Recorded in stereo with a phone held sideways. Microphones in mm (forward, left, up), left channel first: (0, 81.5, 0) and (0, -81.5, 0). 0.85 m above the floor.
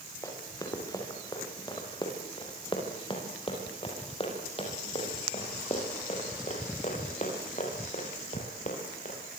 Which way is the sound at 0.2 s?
20° left (ahead or behind).